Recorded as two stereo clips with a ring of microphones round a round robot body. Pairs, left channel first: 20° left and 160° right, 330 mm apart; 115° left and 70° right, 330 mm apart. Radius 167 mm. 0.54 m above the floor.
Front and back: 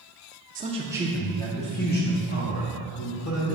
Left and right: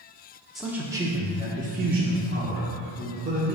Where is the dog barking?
No dog barking in this recording.